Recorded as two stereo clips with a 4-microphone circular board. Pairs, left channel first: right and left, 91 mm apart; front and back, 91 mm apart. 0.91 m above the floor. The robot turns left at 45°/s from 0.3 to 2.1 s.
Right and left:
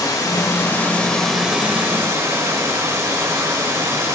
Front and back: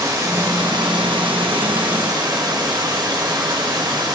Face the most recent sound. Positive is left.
turn(degrees=145)